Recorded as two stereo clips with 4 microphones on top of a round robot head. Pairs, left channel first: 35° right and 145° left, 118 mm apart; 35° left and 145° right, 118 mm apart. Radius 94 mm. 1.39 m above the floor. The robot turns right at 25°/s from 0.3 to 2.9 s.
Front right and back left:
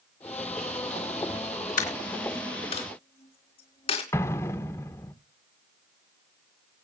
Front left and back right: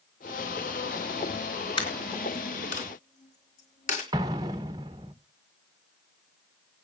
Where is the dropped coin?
20° right, 3 m; by 4.0 s 10° left, 3 m.